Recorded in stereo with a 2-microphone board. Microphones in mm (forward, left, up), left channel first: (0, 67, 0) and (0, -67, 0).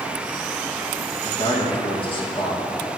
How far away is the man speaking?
About 1.3 m.